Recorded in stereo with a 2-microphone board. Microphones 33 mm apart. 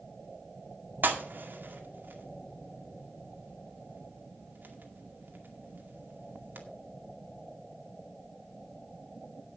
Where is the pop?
85° right, 2 m.